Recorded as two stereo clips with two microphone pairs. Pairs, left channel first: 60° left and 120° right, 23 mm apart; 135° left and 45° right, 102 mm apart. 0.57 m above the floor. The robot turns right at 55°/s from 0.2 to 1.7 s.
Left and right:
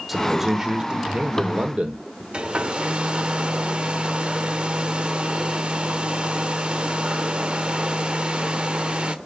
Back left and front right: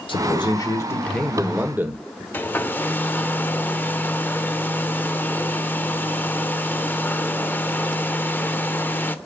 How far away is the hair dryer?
About 0.9 m.